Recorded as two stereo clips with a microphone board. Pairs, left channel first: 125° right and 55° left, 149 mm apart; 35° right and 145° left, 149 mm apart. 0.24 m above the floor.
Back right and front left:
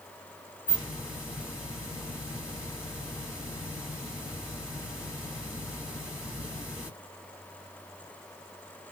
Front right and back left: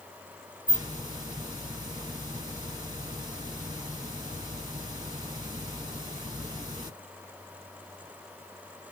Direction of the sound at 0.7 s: 135° left.